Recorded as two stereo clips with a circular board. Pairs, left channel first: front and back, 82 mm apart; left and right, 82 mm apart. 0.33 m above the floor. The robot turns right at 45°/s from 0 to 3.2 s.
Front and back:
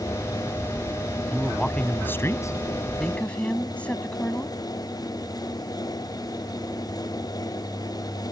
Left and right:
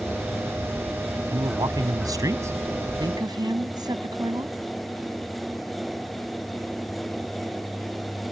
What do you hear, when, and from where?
1.3 s a man speaking: 95° right; by 2.5 s 40° right
3.0 s a woman speaking: 80° right; by 4.5 s 70° right